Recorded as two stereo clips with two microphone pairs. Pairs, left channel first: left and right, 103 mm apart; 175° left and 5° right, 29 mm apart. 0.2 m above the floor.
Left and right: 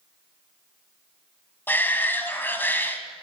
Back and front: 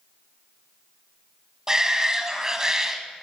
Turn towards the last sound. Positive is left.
turn(degrees=40)